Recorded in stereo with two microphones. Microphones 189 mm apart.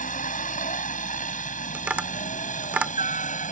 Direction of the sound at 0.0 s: 45° left (ahead or behind).